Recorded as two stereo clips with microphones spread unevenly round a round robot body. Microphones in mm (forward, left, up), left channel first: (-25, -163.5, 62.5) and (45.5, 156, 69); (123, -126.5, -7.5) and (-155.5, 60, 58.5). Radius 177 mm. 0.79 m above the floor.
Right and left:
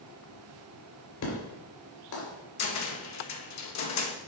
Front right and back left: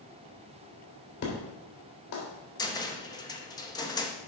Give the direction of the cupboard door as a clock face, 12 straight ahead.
3 o'clock.